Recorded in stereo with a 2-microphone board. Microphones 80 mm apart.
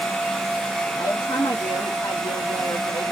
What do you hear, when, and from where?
1.0 s a woman speaking: 75° left (ahead or behind), 3 m